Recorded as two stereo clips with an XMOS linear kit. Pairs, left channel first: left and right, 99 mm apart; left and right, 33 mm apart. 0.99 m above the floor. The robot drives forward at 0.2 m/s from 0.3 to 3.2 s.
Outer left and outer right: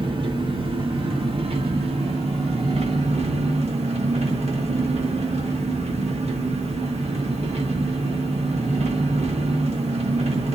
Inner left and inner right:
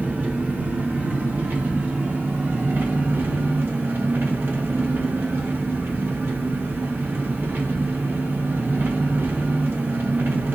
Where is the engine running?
55° right (ahead or behind), 1.0 m; by 10.6 s 85° right, 0.8 m.